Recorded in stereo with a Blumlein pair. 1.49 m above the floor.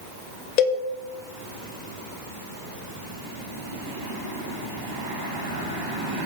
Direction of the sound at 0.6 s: 35° left.